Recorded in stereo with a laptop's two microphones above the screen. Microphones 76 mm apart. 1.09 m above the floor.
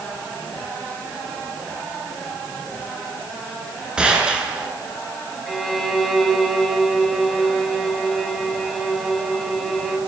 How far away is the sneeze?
I don't hear a sneeze.